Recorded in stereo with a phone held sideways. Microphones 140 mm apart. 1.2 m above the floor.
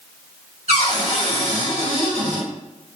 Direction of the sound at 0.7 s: 50° right (ahead or behind).